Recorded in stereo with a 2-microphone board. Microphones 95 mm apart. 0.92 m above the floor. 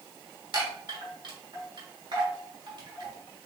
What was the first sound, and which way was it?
A chime, 50° right (ahead or behind).